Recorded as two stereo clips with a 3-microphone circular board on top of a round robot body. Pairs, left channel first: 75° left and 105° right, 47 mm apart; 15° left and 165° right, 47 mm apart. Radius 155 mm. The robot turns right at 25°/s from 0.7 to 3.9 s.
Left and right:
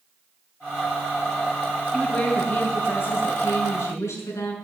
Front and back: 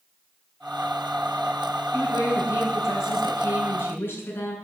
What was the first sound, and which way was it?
A woman speaking, 10° left.